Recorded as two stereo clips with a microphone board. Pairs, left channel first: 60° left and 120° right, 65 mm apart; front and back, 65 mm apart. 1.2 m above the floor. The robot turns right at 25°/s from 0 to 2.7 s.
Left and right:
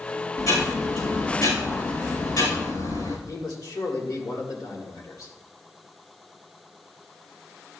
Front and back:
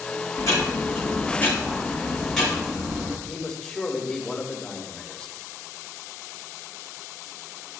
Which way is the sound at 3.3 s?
75° left.